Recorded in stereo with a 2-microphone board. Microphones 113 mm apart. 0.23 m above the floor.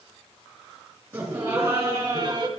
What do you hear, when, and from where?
1.1 s laughter: 20° right (ahead or behind), 2.5 m; by 2.5 s 35° right (ahead or behind), 1.4 m